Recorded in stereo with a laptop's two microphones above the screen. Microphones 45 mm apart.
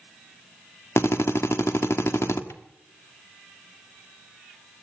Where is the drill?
80° left, 1.4 m.